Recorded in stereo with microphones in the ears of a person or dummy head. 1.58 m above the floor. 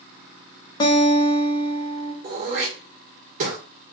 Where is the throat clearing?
40° right (ahead or behind), 1.2 m.